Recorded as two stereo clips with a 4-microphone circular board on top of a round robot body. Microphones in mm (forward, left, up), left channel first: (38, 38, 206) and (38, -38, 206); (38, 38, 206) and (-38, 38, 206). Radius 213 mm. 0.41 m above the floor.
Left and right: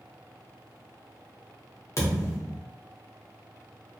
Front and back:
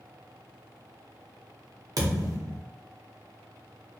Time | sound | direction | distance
2.0 | a thud | 140° left | 0.7 m